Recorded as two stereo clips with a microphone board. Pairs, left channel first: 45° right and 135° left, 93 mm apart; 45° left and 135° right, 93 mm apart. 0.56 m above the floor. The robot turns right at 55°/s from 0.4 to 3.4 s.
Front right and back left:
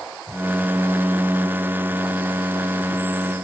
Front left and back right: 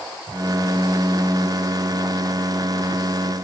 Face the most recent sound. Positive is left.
No sound to turn to.